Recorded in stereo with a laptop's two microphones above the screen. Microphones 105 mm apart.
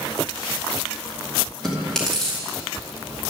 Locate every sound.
1.6 s chewing: 5° left (ahead or behind), 2.5 m